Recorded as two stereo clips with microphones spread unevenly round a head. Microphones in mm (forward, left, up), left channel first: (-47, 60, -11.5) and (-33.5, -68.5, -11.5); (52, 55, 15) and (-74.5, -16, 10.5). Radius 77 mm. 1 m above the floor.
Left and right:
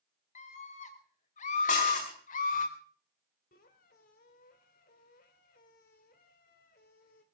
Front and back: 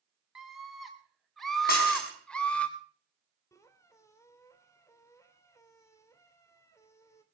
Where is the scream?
120° left, 4.5 m; by 2.7 s 110° left, 3.5 m.